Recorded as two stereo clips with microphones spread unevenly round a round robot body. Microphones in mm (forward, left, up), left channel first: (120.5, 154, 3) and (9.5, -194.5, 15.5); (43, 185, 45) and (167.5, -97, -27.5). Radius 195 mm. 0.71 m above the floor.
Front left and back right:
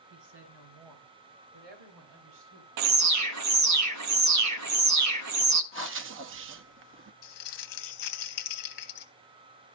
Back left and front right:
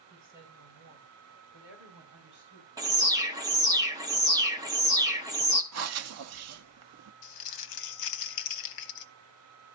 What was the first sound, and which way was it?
A woman speaking, 150° right.